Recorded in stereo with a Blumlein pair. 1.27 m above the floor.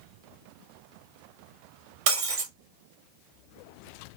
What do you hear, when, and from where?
2.1 s breaking glass: 50° right, 1.1 m